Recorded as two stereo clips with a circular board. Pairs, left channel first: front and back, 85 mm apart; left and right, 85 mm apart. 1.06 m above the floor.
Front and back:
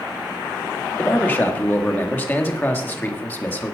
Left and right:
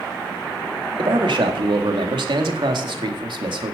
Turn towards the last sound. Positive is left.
turn(degrees=-70)